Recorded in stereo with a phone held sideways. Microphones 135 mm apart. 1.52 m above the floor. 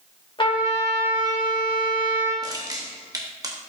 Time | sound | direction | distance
0.4 | a trumpet | 40° left (ahead or behind) | 2.5 m
2.4 | crushing | 25° right (ahead or behind) | 1.1 m